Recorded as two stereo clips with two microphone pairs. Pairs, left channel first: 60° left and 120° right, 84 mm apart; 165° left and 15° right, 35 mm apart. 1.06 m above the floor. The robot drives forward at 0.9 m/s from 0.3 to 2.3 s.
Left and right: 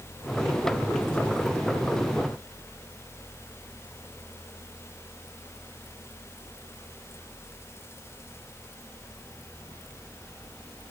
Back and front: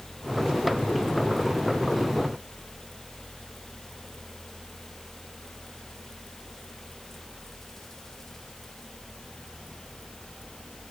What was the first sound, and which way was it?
Only background noise.